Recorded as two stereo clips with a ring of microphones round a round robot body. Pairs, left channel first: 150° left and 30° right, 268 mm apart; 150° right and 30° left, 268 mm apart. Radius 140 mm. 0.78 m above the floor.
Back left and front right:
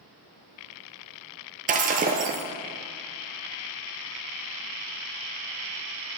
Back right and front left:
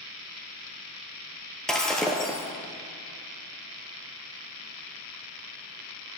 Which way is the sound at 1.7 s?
65° right.